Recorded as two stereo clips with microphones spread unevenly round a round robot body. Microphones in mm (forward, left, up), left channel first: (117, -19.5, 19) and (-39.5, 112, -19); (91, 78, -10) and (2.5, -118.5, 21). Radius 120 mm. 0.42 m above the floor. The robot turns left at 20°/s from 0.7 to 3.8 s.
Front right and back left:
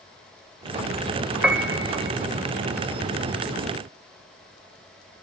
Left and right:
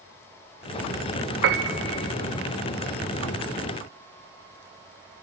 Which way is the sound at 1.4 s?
135° right.